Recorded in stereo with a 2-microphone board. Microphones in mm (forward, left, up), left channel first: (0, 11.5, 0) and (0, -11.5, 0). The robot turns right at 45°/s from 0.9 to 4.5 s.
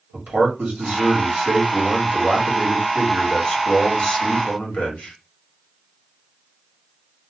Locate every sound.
0.1 s a man speaking: 95° right, 1.6 m; by 5.1 s 65° left, 1.6 m